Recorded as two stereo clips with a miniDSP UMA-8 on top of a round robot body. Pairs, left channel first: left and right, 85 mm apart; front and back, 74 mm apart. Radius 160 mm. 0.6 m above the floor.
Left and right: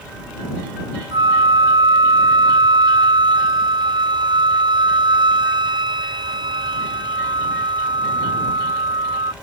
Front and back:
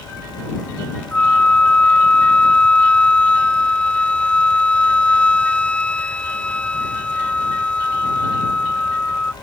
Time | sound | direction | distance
1.1 | a flute | 75° right | ?